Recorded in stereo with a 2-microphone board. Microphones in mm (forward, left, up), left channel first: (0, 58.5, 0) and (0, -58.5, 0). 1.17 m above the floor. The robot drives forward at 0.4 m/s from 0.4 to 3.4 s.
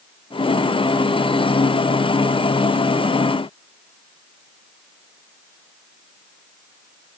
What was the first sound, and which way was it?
Only background noise.